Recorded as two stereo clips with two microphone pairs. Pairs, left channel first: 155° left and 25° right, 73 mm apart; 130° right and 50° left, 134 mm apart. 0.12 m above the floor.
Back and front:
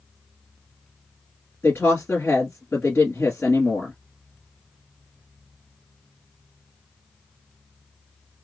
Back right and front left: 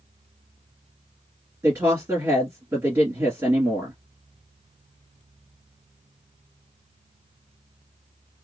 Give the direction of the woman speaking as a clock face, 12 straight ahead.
8 o'clock.